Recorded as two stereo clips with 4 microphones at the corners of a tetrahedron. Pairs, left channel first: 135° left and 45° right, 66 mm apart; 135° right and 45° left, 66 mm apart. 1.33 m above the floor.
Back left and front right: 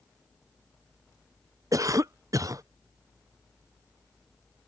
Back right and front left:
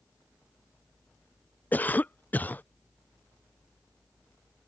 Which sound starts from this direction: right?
A cough, at 1.7 s.